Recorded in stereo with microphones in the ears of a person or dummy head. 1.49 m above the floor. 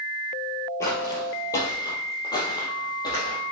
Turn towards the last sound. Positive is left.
turn(degrees=25)  # may be behind; listen again after turning